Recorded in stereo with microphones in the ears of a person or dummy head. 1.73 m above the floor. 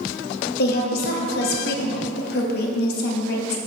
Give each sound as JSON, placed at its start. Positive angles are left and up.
{"t": 0.6, "sound": "a woman speaking", "side_deg": 60, "distance_m": 0.9}